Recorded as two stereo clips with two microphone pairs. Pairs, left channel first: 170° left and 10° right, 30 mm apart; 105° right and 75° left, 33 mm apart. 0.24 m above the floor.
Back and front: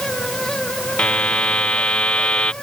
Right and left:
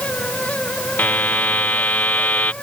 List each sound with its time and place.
1.0 s a buzzer: 140° right